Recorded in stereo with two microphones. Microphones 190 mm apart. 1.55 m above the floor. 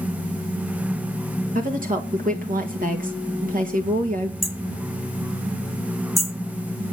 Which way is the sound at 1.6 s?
45° right (ahead or behind).